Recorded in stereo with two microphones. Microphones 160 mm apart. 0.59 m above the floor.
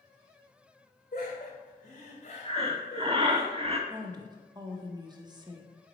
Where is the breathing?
35° right (ahead or behind), 0.7 m.